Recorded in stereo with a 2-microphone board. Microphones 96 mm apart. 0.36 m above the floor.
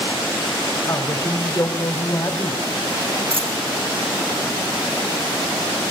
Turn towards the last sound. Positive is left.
turn(degrees=-70)  # may be behind; listen again after turning